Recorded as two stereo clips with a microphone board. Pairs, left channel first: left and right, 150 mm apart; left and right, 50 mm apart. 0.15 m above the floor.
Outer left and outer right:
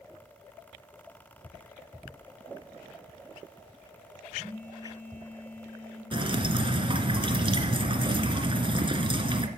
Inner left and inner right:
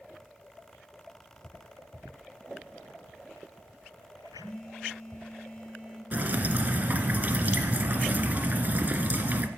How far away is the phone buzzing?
About 5 m.